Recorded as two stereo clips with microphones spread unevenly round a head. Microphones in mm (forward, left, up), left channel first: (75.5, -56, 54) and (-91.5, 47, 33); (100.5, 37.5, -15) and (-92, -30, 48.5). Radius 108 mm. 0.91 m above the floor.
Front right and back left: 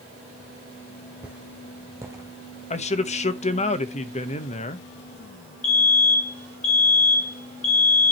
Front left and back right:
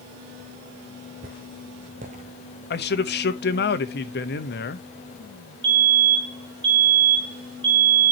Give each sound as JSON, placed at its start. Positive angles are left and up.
{"t": 1.2, "sound": "footsteps", "azimuth_deg": -125, "distance_m": 2.0}
{"t": 2.7, "sound": "a man speaking", "azimuth_deg": 25, "distance_m": 1.0}
{"t": 5.6, "sound": "a fire alarm", "azimuth_deg": -90, "distance_m": 3.5}